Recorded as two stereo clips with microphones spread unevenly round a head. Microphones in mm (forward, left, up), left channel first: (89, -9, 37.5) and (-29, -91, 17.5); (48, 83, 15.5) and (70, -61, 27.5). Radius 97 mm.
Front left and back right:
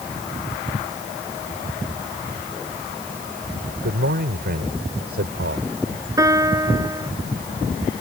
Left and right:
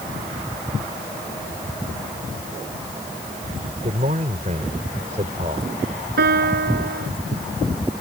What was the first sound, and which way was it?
A man speaking, 140° right.